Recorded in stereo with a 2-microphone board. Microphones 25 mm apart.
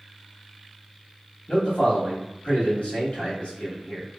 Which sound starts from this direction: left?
A man speaking, at 1.5 s.